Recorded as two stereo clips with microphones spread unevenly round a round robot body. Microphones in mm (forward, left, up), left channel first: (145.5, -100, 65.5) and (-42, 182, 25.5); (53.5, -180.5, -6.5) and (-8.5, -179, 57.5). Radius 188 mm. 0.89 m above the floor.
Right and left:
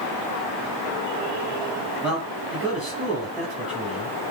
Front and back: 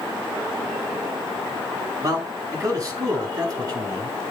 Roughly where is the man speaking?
Behind right.